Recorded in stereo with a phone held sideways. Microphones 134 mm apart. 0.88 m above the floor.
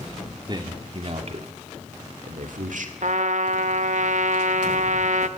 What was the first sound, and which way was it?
A man speaking, 35° right (ahead or behind).